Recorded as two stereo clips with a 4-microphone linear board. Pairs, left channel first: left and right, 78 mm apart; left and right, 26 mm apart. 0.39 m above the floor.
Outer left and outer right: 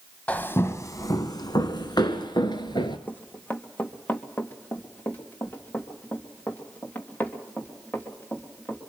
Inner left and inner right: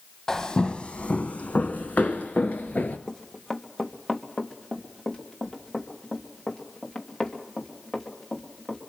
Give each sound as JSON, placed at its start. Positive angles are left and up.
{"t": 0.3, "sound": "footsteps", "side_deg": 20, "distance_m": 0.6}
{"t": 3.1, "sound": "running footsteps", "side_deg": 20, "distance_m": 1.3}